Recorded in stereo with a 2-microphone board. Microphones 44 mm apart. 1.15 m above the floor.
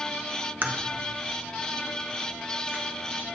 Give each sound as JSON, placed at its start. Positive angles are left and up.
{"t": 0.6, "sound": "a crack", "side_deg": -45, "distance_m": 0.8}